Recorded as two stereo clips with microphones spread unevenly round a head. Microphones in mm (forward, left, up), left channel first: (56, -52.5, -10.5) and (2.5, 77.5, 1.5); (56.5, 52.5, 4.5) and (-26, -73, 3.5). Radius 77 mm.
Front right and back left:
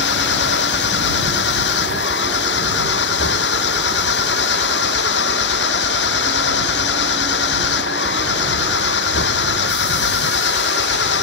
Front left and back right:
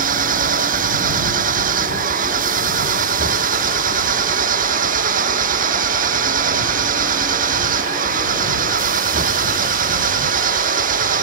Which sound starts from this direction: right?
An engine running, at 0.0 s.